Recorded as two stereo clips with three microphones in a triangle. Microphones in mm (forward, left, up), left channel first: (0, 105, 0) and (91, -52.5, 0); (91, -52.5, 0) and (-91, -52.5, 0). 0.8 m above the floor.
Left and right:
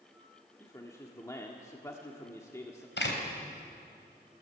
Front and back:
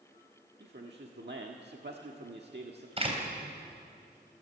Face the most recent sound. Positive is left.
turn(degrees=125)